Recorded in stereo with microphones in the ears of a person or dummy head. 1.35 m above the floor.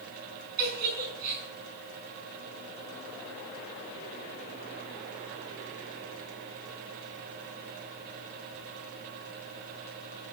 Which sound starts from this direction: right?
A giggle, at 0.6 s.